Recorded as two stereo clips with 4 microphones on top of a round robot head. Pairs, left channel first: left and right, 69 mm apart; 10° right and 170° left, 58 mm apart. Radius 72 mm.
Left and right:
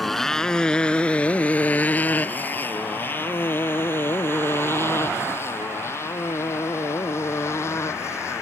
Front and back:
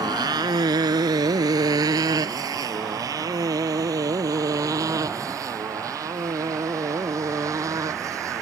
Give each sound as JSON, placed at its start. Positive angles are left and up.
{"t": 0.0, "sound": "a motorcycle", "azimuth_deg": 180}